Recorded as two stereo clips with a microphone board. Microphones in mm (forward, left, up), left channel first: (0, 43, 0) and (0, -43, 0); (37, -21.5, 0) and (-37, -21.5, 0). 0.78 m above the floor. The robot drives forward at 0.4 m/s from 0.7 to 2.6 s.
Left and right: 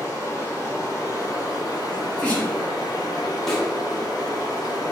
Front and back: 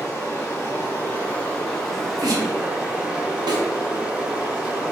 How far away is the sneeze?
About 1.2 m.